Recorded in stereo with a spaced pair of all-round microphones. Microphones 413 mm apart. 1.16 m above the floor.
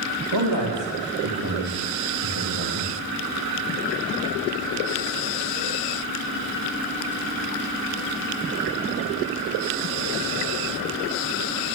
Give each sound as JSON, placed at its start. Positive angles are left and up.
{"t": 0.3, "sound": "a man speaking", "side_deg": -85, "distance_m": 3.0}